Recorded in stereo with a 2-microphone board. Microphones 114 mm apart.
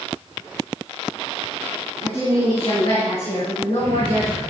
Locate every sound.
2.0 s a woman speaking: 70° left (ahead or behind), 5.5 m; by 4.4 s 80° left, 7 m